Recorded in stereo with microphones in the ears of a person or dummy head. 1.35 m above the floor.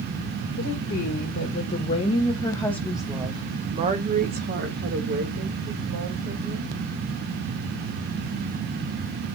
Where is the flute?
No flute in this recording.